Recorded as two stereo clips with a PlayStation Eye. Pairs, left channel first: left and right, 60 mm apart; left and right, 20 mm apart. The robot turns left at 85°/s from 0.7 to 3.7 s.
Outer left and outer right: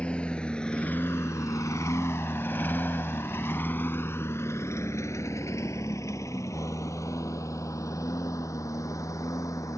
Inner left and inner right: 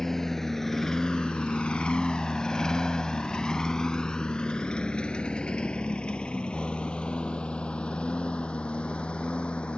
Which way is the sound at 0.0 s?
20° left (ahead or behind).